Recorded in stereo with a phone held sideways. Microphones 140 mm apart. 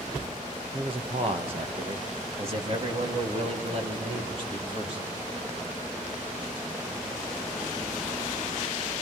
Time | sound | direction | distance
0.7 | a man speaking | 40° right (ahead or behind) | 1.4 m